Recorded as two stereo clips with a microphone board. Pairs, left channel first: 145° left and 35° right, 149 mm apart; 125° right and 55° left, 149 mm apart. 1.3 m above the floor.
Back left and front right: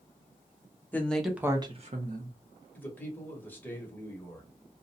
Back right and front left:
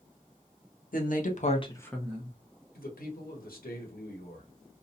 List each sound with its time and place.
0.9 s a woman speaking: 135° right, 0.9 m; by 2.4 s 15° right, 0.8 m
2.8 s a man speaking: 135° right, 1.0 m